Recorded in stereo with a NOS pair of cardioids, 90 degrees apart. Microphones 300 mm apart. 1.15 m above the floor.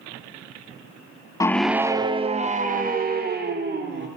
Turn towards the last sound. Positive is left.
turn(degrees=-35)